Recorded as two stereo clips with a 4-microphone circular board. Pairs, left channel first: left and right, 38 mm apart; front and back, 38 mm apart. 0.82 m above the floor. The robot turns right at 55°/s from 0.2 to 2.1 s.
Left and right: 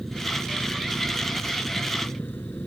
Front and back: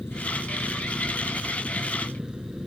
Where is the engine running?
5° left; by 2.7 s 110° left.